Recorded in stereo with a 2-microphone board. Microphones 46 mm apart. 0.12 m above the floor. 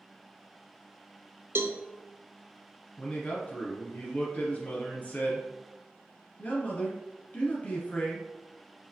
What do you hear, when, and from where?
1.6 s a cowbell: 65° right (ahead or behind), 0.5 m
3.0 s a man speaking: 35° left (ahead or behind), 1.9 m